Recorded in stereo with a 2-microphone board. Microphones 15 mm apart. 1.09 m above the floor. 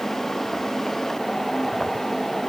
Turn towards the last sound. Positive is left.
No sound to turn to.